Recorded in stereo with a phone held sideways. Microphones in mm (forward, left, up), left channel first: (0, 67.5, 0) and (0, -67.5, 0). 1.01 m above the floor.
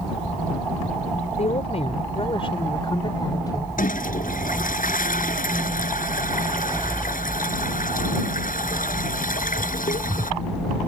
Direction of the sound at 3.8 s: 90° left.